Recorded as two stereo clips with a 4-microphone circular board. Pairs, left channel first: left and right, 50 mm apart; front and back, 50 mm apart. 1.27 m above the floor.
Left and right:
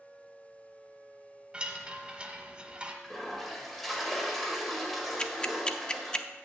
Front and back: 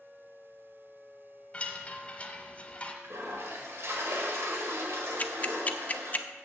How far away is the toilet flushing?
About 1.6 m.